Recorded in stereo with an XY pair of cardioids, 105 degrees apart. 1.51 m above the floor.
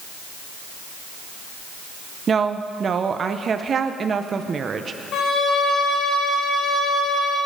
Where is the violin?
65° left, 3 m.